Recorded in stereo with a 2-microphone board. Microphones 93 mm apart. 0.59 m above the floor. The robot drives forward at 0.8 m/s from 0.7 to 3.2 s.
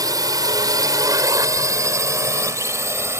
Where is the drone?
45° right (ahead or behind); by 3.2 s 30° right (ahead or behind).